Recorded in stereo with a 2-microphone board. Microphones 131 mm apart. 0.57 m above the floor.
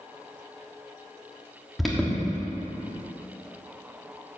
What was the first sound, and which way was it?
An alarm, centre (ahead or behind).